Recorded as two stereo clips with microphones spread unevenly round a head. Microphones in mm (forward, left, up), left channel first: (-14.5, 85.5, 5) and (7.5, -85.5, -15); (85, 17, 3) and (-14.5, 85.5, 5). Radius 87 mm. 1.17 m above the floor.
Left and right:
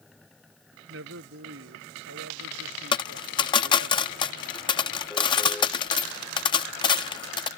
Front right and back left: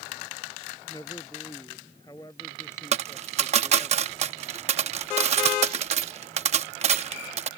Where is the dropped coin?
150° left.